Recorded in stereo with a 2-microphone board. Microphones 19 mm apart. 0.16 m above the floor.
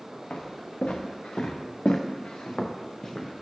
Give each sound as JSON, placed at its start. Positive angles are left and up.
{"t": 0.3, "sound": "footsteps", "side_deg": 65, "distance_m": 1.3}